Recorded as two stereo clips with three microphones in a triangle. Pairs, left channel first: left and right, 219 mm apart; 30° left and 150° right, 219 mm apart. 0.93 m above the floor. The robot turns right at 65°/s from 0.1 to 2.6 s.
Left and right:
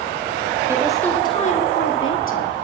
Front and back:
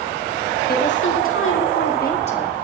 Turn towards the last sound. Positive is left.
turn(degrees=110)